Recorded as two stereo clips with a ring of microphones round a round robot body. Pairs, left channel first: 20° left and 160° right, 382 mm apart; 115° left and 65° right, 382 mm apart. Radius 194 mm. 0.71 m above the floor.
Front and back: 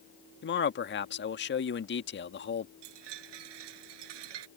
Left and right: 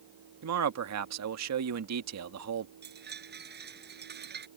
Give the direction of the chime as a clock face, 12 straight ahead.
4 o'clock.